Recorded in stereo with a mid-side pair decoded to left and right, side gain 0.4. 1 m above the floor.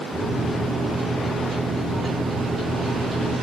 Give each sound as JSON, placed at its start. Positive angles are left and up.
{"t": 0.1, "sound": "a microwave", "azimuth_deg": -20, "distance_m": 1.6}